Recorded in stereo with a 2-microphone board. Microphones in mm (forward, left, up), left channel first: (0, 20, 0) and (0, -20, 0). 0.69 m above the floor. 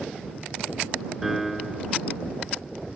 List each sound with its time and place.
1.2 s a piano: 5° right (ahead or behind)